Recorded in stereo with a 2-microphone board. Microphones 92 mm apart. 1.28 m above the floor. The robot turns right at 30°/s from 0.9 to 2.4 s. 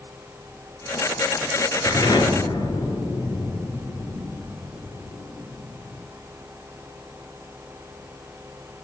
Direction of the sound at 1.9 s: 40° left (ahead or behind).